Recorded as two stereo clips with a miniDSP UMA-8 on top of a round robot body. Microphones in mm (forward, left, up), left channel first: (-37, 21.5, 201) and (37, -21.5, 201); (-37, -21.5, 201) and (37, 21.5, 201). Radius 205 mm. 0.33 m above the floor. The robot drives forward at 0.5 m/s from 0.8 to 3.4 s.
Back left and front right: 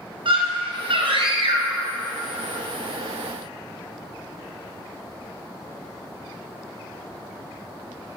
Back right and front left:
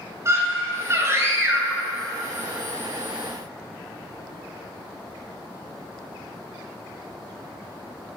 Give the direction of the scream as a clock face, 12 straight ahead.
1 o'clock.